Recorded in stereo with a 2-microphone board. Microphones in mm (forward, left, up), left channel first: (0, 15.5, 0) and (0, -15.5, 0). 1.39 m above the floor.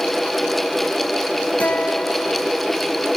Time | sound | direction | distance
1.6 | a guitar | 70° left (ahead or behind) | 3 m